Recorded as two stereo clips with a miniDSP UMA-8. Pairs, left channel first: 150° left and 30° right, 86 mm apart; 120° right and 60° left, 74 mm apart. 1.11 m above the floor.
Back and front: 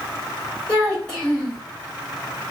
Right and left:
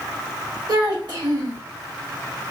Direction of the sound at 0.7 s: 70° left.